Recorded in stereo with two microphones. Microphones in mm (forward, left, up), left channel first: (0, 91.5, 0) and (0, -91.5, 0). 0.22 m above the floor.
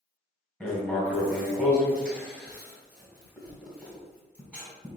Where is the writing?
5° left (ahead or behind), 1.4 m.